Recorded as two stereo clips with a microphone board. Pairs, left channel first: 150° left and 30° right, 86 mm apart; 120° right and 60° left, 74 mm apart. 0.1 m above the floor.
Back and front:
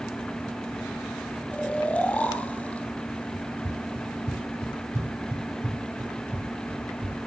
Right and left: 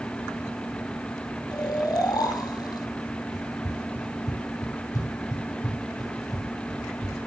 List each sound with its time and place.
1.5 s snoring: 135° right, 3 m
3.3 s running footsteps: 80° right, 8.5 m; by 7.2 s 95° right, 9 m